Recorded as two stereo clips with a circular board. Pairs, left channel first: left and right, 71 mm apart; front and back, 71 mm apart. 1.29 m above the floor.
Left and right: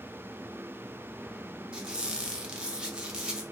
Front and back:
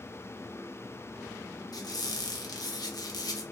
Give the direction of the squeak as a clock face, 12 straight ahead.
12 o'clock.